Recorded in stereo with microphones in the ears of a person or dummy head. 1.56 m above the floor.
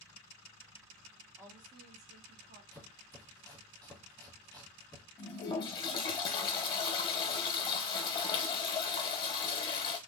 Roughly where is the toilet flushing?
Left.